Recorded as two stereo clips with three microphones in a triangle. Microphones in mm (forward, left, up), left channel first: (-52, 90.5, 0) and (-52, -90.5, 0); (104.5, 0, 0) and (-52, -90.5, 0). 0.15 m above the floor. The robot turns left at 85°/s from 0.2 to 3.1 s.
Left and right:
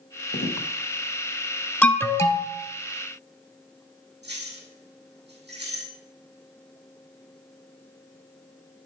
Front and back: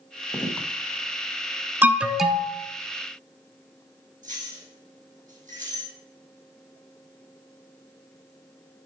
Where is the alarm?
155° left, 0.8 m; by 2.5 s 95° left, 0.8 m.